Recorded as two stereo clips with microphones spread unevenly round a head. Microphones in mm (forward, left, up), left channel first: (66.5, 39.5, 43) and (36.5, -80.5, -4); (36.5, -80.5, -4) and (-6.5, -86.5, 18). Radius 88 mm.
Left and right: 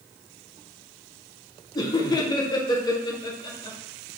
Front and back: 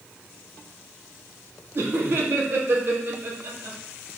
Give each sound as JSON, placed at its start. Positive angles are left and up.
{"t": 1.8, "sound": "laughter", "azimuth_deg": 140, "distance_m": 0.5}